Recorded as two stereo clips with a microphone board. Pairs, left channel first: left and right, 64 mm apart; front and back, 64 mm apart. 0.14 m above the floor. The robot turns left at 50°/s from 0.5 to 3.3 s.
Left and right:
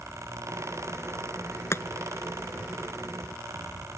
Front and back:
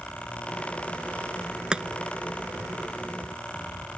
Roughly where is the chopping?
Left.